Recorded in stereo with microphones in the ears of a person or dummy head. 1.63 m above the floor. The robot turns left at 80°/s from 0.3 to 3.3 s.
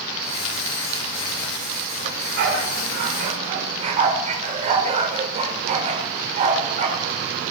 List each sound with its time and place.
2.0 s a dog barking: 30° right (ahead or behind), 2 m; by 7.0 s 35° right (ahead or behind), 2 m